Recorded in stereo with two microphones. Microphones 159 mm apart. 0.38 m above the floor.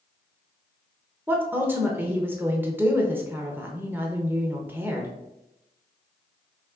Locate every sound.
1.3 s a woman speaking: 15° right (ahead or behind), 0.8 m